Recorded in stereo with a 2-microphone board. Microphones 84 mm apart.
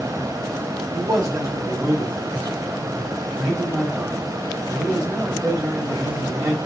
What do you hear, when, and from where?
0.9 s a man speaking: 45° right (ahead or behind), 2.5 m